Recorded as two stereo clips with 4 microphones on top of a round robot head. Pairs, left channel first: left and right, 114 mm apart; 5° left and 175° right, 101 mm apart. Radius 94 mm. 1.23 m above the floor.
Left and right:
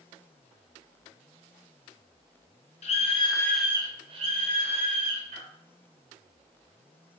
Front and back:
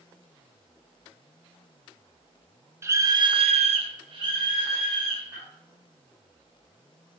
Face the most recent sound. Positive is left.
turn(degrees=-105)